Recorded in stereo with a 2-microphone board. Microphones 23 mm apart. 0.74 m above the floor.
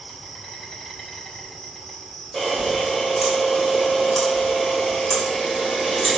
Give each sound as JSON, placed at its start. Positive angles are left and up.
{"t": 0.0, "sound": "an insect", "side_deg": 15, "distance_m": 3.0}
{"t": 2.3, "sound": "a camera shutter", "side_deg": 10, "distance_m": 3.5}